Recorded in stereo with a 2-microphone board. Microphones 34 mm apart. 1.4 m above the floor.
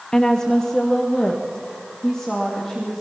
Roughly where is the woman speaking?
Left.